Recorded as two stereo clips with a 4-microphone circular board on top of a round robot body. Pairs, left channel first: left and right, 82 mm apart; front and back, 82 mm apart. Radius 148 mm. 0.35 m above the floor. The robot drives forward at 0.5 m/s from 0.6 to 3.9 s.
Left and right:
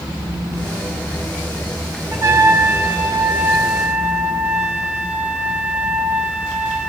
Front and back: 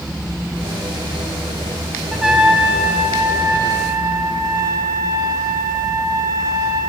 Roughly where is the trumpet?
Right.